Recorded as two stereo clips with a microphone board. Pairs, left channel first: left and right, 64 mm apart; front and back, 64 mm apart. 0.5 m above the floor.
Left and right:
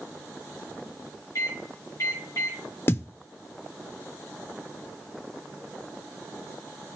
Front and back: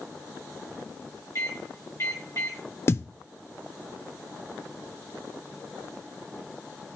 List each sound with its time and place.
1.4 s a microwave: 45° left, 5 m
2.9 s a thud: 45° left, 0.5 m